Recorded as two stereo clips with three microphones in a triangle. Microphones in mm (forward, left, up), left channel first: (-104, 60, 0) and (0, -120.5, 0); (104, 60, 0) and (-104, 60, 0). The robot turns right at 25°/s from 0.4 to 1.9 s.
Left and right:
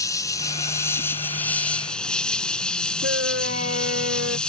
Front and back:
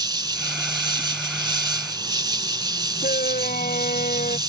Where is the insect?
160° left; by 4.5 s 160° right.